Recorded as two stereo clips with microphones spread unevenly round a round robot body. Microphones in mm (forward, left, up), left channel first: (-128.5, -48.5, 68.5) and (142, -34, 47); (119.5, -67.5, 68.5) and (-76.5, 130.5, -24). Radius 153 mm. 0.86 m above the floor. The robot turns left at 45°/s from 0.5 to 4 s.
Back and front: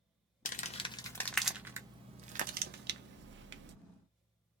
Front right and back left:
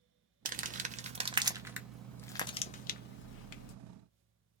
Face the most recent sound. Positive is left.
turn(degrees=-30)